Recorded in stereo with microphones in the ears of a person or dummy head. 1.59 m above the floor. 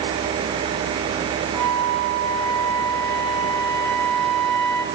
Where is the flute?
Centre (ahead or behind), 1.6 m.